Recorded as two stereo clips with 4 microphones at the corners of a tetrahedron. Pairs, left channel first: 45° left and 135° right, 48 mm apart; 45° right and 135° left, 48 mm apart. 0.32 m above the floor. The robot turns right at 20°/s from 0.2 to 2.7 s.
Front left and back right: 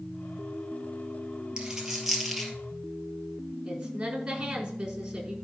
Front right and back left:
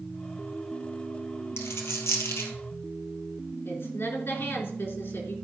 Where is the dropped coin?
60° right, 2.5 m; by 2.5 s 40° right, 2.5 m.